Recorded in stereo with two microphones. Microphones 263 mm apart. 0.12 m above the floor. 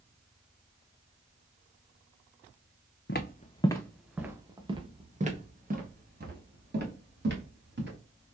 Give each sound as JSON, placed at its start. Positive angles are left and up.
{"t": 3.1, "sound": "footsteps", "side_deg": 45, "distance_m": 0.6}